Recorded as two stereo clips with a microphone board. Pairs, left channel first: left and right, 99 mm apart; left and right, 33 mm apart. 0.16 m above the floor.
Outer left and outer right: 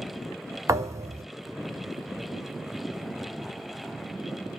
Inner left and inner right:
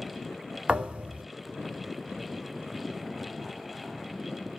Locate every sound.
0.7 s a thud: 30° right (ahead or behind), 0.8 m